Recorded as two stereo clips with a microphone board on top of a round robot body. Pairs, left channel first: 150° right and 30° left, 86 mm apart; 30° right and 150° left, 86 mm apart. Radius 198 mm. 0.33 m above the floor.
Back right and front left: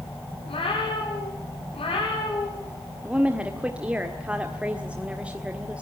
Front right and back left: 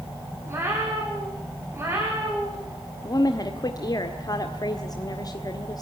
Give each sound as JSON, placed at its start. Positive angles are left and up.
{"t": 0.5, "sound": "a cat meowing", "azimuth_deg": -150, "distance_m": 8.5}
{"t": 3.0, "sound": "a woman speaking", "azimuth_deg": -40, "distance_m": 1.9}